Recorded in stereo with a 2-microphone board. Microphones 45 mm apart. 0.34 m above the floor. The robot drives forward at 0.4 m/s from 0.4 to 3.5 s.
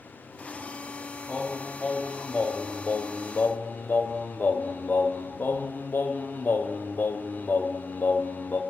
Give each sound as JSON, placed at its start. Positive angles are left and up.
{"t": 1.3, "sound": "singing", "side_deg": 20, "distance_m": 1.0}